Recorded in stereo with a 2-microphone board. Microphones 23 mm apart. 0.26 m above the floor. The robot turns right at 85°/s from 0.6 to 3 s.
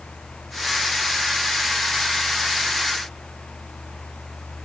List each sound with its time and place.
Only background noise.